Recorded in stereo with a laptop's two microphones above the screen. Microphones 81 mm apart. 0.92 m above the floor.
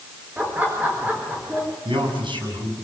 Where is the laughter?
20° right (ahead or behind), 3.5 m.